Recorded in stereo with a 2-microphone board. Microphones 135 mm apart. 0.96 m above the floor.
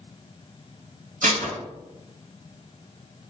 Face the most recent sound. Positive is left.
turn(degrees=-80)